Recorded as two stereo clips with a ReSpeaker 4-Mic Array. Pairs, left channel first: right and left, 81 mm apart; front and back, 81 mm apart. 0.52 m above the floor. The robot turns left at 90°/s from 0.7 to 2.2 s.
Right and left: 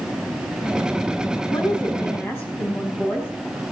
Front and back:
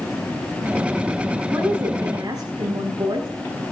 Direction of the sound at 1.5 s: 85° right.